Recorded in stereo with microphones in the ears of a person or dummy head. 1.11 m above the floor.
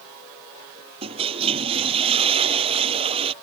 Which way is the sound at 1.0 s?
30° right (ahead or behind).